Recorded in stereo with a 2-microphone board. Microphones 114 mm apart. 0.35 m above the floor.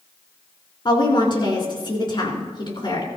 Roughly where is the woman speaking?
Left.